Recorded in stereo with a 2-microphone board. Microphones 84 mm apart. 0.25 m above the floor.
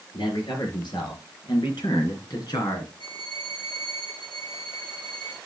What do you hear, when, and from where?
0.1 s a man speaking: 75° left (ahead or behind), 4.5 m; by 2.9 s 55° left (ahead or behind), 3 m
3.0 s a violin: 85° left, 4.5 m